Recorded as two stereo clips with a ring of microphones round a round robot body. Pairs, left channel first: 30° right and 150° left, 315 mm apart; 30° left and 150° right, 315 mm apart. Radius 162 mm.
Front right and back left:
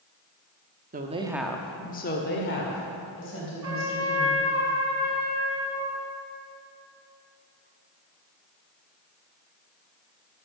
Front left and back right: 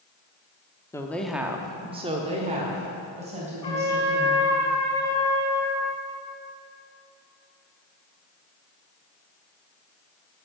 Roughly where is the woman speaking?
Left.